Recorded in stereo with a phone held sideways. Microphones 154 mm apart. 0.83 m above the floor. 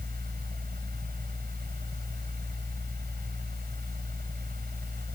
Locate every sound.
0.0 s a fan: 85° right